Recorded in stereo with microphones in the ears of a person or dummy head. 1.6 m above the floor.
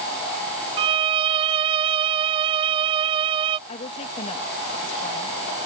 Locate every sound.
0.8 s a violin: 30° right (ahead or behind)
3.7 s a woman speaking: 35° left (ahead or behind)